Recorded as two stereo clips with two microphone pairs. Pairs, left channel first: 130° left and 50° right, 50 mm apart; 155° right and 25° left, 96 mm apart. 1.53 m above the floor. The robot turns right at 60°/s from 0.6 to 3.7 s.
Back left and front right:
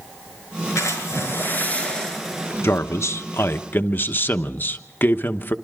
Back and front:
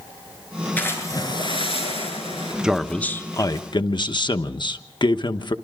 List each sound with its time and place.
0.8 s a splash: 130° left, 7.5 m; by 2.5 s 120° right, 7.5 m
2.6 s a man speaking: 105° left, 1.1 m; by 5.5 s 170° left, 1.1 m